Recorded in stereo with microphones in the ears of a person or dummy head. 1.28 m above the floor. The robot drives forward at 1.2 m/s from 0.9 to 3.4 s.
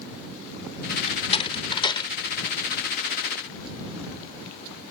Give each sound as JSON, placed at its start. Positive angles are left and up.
{"t": 1.1, "sound": "a door slam", "side_deg": 35}